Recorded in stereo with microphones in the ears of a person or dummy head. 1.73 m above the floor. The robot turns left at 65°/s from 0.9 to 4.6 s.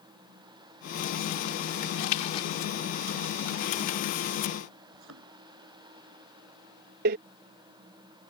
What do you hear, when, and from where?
2.0 s a splash: 55° left; by 2.5 s 25° left
4.9 s a thud: 80° right
7.0 s a door slam: 50° right (ahead or behind)